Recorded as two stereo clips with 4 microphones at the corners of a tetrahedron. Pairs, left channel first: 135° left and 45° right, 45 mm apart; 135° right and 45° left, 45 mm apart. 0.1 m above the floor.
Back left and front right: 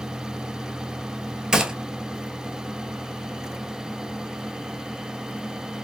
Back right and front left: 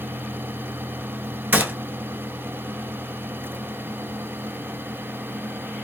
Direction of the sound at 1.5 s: 25° left.